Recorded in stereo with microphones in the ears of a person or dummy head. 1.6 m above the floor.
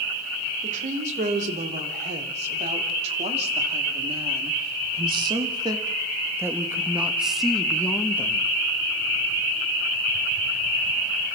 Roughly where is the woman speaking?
Right.